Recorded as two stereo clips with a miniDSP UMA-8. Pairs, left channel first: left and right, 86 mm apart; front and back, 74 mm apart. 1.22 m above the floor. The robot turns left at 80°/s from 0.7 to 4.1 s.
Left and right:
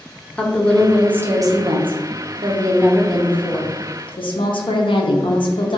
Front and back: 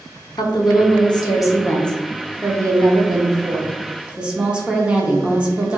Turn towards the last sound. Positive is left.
turn(degrees=105)